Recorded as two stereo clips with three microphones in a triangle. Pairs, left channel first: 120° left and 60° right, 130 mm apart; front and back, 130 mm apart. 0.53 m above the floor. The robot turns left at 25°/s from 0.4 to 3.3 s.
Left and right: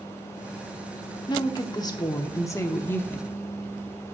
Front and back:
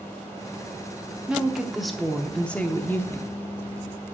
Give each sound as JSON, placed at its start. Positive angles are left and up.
{"t": 1.3, "sound": "a woman speaking", "azimuth_deg": 100, "distance_m": 0.7}